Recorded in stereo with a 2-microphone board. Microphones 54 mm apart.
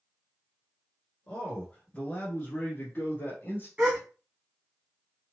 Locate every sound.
1.3 s a man speaking: 20° left (ahead or behind), 1.4 m; by 3.7 s 35° left (ahead or behind), 1.6 m
3.8 s a gasp: 20° right (ahead or behind), 2 m